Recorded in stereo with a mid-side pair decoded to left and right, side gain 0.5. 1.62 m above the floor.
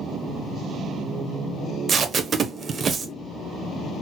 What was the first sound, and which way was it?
Tape being pulled, 45° right.